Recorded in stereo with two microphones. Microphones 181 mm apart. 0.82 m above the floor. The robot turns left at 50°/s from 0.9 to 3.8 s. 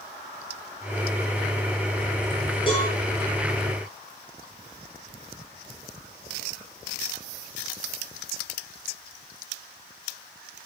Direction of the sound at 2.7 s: 30° left (ahead or behind).